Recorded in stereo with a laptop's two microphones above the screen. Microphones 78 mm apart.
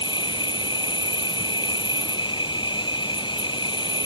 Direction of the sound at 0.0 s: 75° left (ahead or behind).